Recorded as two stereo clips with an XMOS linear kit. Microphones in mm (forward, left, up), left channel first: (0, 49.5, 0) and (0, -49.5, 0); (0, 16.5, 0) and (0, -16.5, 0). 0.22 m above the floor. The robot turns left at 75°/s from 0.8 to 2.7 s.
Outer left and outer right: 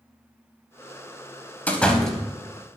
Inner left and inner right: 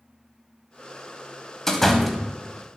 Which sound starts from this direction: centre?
A door slam, at 1.7 s.